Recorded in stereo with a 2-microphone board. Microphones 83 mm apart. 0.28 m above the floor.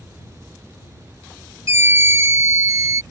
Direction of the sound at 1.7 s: 35° right (ahead or behind).